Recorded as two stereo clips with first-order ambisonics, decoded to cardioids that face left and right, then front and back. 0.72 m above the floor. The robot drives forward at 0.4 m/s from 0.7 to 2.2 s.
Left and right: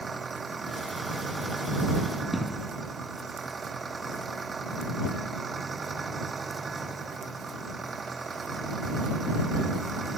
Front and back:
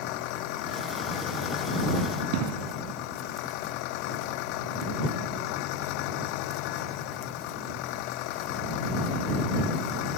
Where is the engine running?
15° right.